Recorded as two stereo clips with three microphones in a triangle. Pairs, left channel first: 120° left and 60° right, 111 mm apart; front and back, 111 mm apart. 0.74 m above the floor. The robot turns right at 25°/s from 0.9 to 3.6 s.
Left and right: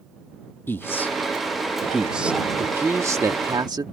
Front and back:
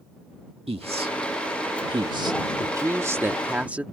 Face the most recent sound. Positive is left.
turn(degrees=-105)